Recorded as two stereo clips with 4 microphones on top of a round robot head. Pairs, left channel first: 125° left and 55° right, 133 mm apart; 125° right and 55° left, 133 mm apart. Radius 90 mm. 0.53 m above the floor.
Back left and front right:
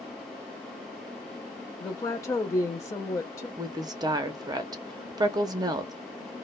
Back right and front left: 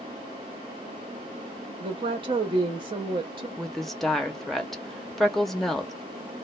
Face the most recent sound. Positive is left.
turn(degrees=-40)